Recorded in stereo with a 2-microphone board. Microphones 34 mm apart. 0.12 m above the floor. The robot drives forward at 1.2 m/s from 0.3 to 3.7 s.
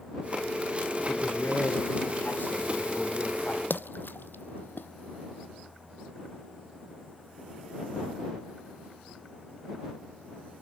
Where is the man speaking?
70° left (ahead or behind), 6.5 m; by 3.6 s 50° left (ahead or behind), 8 m.